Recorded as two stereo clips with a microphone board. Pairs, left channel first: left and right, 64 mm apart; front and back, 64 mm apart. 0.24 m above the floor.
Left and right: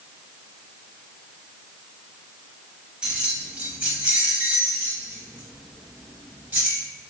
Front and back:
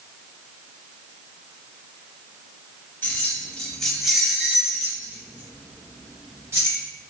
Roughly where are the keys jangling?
Ahead right.